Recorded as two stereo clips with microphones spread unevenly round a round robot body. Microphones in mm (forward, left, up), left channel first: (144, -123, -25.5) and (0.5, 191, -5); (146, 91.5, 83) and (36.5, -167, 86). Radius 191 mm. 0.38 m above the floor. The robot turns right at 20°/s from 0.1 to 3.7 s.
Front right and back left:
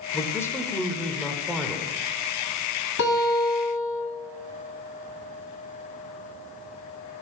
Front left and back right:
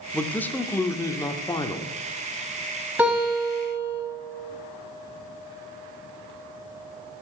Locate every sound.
0.1 s a man speaking: 10° right, 0.8 m; by 1.9 s 25° left, 0.8 m
3.0 s a guitar: 30° right, 3.5 m; by 4.0 s 15° right, 3.5 m